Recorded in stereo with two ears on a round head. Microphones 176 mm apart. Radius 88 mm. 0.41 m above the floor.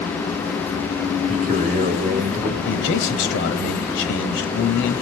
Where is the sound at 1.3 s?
40° right (ahead or behind), 1.7 m.